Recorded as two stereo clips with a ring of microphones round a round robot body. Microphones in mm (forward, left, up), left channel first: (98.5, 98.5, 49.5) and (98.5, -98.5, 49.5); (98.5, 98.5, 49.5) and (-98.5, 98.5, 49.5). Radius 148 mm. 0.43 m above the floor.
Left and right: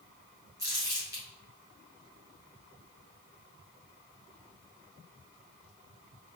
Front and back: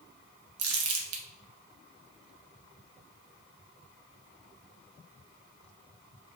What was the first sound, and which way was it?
Crumpling, 170° right.